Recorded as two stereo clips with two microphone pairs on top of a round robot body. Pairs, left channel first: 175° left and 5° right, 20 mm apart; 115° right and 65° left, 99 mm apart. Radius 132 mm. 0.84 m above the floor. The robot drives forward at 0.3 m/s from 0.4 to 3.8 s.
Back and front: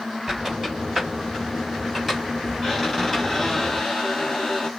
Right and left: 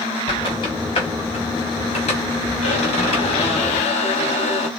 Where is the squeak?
70° right, 1.5 m; by 4.7 s 110° right, 1.6 m.